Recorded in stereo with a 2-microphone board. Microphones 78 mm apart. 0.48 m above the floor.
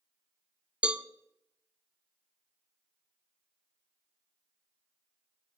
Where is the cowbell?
15° right (ahead or behind), 0.6 m.